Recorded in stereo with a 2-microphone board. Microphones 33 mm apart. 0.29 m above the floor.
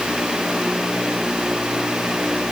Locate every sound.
Only background noise.